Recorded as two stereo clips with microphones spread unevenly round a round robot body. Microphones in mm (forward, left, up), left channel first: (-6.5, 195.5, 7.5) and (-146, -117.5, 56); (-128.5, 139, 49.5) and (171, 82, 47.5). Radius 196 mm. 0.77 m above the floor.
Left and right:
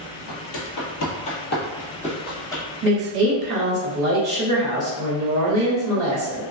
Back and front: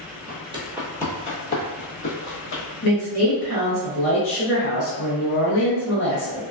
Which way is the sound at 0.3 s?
45° left.